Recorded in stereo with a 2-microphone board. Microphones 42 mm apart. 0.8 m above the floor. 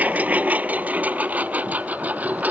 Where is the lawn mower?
40° right (ahead or behind).